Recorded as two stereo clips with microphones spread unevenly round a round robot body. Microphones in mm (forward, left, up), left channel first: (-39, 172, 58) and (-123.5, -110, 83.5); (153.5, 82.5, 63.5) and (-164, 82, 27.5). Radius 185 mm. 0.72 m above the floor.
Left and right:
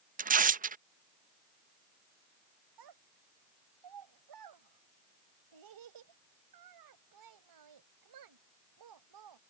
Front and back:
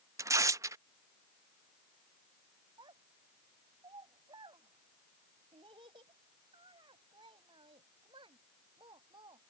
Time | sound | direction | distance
0.2 | tearing paper | 130° right | ?
2.8 | a child speaking | 100° right | ?